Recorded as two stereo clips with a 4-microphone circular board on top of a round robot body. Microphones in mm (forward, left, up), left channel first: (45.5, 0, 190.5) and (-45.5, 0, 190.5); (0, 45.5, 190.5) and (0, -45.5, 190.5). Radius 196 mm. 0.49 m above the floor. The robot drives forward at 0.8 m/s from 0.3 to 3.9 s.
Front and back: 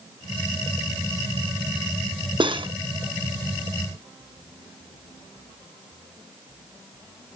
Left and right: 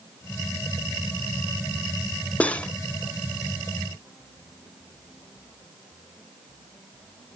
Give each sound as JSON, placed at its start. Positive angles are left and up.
{"t": 2.4, "sound": "cutlery clinking", "azimuth_deg": 165, "distance_m": 0.7}